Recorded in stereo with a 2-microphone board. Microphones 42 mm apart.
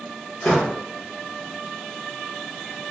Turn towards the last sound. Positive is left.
turn(degrees=20)  # may be behind; listen again after turning